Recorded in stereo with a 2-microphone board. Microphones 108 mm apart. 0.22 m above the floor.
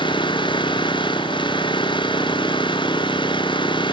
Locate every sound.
0.0 s an engine running: 50° left (ahead or behind)